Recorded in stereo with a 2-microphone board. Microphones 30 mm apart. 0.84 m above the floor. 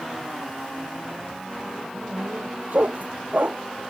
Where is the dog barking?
60° right (ahead or behind).